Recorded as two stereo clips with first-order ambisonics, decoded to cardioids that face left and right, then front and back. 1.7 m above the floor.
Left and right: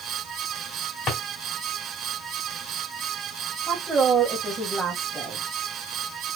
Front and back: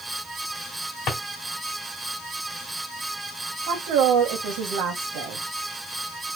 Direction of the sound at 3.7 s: 170° right.